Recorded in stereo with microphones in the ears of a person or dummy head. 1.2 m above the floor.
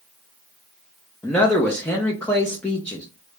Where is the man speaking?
5° left (ahead or behind), 0.6 m.